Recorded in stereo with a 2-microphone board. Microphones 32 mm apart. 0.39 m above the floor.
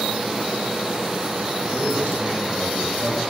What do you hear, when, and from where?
1.6 s a man speaking: 80° right, 7 m; by 3.2 s 70° right (ahead or behind), 6.5 m